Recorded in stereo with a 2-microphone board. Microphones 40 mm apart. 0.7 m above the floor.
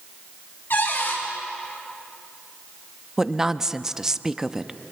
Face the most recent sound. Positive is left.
turn(degrees=-10)  # may be behind; listen again after turning